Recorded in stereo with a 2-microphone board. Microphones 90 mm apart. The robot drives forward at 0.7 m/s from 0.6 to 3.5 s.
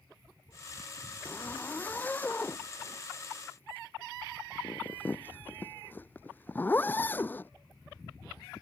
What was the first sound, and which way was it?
A zipper, 15° left (ahead or behind).